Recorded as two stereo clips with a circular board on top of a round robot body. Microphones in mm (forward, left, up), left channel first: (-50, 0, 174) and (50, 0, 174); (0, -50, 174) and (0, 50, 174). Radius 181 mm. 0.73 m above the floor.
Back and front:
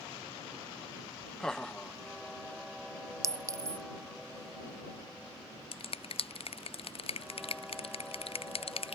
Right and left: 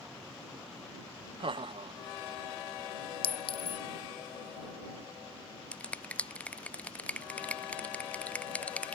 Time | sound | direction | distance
1.4 | laughter | 95° left | ?
3.2 | a clink | 60° right | ?
5.7 | a finger snap | 165° right | ?